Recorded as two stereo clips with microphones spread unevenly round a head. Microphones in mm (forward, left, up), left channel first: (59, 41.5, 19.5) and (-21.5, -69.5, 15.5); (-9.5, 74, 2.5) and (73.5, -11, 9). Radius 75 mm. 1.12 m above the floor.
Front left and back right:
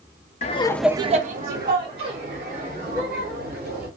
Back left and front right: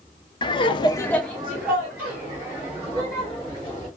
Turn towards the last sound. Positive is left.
turn(degrees=-120)